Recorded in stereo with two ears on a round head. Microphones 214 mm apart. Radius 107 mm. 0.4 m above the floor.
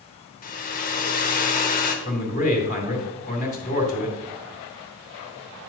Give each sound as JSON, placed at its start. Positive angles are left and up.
{"t": 0.4, "sound": "a hair dryer", "side_deg": 35, "distance_m": 1.2}
{"t": 2.0, "sound": "a man speaking", "side_deg": 30, "distance_m": 1.9}